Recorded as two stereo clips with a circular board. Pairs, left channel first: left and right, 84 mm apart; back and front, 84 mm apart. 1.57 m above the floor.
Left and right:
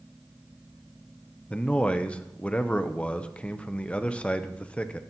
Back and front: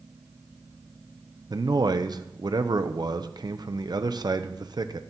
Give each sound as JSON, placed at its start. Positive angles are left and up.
{"t": 1.5, "sound": "a man speaking", "azimuth_deg": 15, "distance_m": 0.7}